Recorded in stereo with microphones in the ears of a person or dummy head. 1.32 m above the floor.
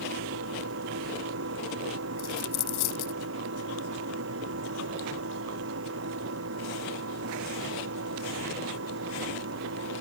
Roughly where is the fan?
Right.